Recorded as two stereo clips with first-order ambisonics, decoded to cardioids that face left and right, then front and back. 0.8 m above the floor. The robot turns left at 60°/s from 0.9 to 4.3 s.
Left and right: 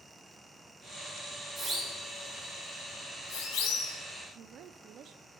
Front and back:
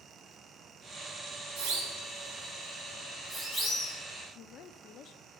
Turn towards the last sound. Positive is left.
turn(degrees=-45)